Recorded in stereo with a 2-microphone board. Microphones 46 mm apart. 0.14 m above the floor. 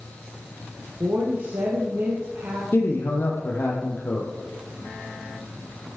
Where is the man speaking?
55° left (ahead or behind), 4 m.